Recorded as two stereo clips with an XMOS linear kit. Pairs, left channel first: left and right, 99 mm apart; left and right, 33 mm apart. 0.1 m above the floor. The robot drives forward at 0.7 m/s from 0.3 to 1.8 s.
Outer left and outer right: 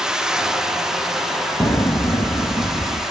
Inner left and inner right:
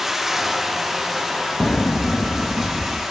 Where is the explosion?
45° left (ahead or behind), 3 m.